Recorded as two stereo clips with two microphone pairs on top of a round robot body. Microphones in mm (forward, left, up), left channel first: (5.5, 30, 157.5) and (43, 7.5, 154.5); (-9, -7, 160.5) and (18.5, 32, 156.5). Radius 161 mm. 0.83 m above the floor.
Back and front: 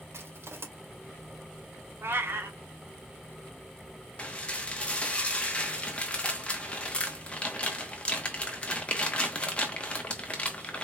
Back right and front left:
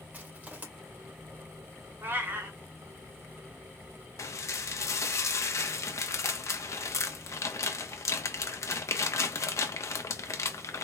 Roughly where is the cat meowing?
Ahead.